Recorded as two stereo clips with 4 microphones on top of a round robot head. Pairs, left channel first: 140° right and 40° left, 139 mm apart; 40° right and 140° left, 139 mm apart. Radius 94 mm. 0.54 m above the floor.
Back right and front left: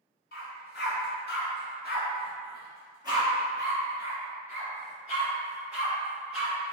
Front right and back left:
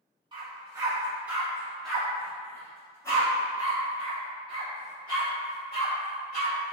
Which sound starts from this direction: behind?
A dog barking, at 0.3 s.